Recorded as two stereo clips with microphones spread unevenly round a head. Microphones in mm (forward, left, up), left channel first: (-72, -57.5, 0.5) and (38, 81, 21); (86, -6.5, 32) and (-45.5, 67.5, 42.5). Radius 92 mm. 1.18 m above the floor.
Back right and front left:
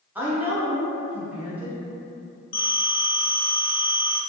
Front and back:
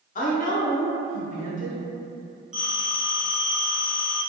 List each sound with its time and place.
0.1 s a woman speaking: 35° right, 0.8 m
2.5 s a phone ringing: 125° right, 0.7 m